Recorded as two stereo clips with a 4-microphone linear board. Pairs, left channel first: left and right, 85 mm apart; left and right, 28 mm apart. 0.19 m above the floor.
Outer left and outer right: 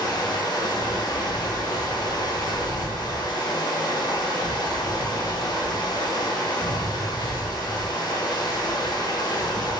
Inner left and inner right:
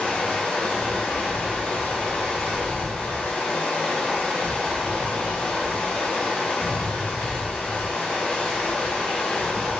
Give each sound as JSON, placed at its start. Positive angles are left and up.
{"t": 0.0, "sound": "running water", "side_deg": 55, "distance_m": 0.8}